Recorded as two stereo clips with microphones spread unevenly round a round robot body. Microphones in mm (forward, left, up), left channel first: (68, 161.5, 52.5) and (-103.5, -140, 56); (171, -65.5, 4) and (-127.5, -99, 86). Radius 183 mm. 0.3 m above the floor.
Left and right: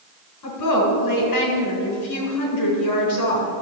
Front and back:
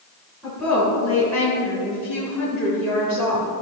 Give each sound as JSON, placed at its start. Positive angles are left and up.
{"t": 0.4, "sound": "a woman speaking", "azimuth_deg": 95, "distance_m": 3.5}